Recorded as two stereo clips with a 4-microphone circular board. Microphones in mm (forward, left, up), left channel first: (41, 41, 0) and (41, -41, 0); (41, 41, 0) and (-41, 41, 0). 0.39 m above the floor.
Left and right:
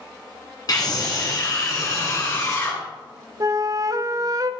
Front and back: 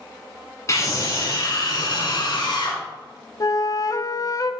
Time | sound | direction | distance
0.7 | a scream | 50° left | 4 m
3.4 | a flute | 40° right | 0.6 m